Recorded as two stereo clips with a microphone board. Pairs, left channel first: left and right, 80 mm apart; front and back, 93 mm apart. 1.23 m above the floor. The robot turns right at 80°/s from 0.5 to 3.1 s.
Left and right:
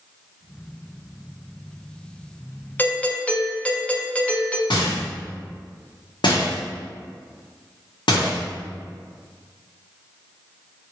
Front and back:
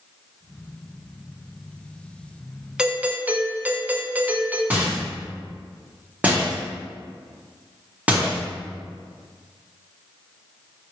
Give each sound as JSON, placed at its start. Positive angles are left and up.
{"t": 2.8, "sound": "a doorbell", "azimuth_deg": 110, "distance_m": 0.5}
{"t": 4.7, "sound": "a rattle", "azimuth_deg": 105, "distance_m": 1.2}